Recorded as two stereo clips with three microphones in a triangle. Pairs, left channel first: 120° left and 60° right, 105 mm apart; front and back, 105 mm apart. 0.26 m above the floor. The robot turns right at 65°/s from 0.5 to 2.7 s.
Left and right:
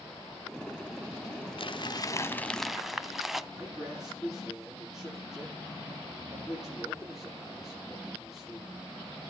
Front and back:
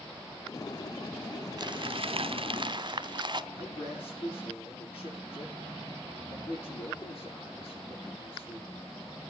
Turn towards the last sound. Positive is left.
turn(degrees=25)